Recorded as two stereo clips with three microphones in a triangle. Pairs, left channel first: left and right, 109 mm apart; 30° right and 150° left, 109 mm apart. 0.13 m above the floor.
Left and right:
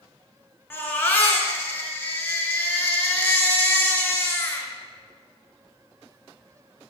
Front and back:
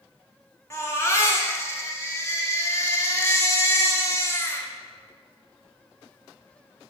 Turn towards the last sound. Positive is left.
turn(degrees=25)